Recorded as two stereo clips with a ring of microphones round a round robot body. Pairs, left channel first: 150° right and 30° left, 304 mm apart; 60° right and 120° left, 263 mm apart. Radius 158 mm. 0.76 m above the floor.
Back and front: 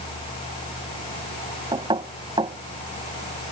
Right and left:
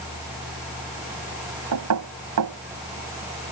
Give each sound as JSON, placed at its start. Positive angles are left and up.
{"t": 1.7, "sound": "knocking", "azimuth_deg": 105}